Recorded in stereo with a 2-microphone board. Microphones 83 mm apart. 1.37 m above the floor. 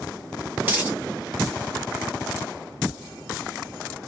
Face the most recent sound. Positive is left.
turn(degrees=-20)  # may be behind; listen again after turning